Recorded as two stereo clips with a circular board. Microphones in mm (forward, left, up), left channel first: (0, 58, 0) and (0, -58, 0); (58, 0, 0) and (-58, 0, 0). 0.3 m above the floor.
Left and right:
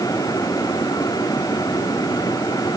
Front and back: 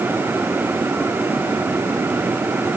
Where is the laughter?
No laughter in this recording.